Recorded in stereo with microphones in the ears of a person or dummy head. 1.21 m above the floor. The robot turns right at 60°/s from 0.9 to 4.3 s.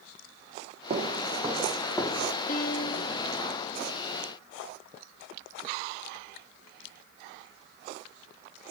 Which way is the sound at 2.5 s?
45° left.